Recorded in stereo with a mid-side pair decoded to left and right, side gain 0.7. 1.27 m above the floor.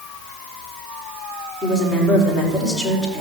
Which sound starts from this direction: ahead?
A woman speaking, at 1.6 s.